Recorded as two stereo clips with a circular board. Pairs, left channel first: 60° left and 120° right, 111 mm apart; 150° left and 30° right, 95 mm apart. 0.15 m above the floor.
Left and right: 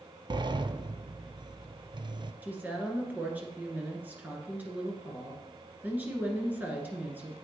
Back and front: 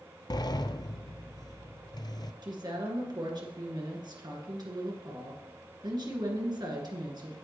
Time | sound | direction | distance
0.3 | a sliding door | 165° right | 0.5 m
2.4 | a woman speaking | 50° right | 2 m